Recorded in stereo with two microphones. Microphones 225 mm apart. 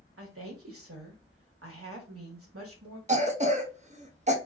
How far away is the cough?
About 0.6 m.